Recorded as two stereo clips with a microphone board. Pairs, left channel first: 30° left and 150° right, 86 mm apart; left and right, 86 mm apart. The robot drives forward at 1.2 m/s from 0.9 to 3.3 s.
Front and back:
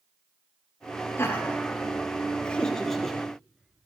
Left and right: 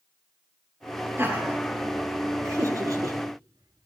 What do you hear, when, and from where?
1.2 s laughter: 30° right, 4 m; by 3.9 s 65° right, 2.5 m